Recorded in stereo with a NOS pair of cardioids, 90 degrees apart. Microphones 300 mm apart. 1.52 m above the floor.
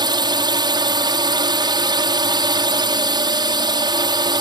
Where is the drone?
15° right.